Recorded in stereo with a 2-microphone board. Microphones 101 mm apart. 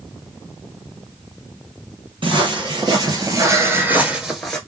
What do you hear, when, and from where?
2.2 s footsteps: 55° right (ahead or behind), 2 m; by 4.6 s 5° left (ahead or behind), 1.3 m